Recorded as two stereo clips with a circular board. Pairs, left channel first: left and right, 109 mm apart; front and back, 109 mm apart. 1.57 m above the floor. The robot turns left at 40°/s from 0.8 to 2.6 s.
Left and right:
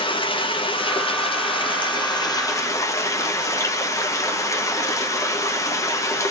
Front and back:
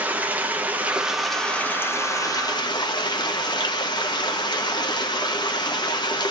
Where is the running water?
110° left, 0.9 m; by 6.3 s 35° left, 0.9 m.